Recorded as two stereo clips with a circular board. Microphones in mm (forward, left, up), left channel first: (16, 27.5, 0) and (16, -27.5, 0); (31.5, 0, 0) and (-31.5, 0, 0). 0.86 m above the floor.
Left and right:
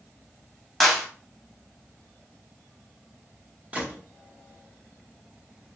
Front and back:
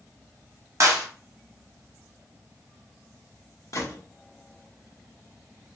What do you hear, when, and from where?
0.8 s a clap: straight behind, 0.7 m
3.7 s a gunshot: 30° right, 0.8 m